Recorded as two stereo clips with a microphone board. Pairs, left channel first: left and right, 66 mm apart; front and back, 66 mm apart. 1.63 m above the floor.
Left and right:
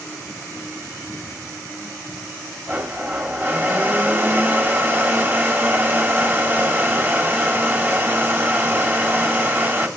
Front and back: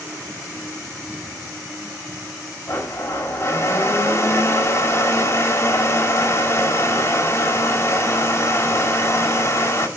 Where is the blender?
35° right, 1.7 m.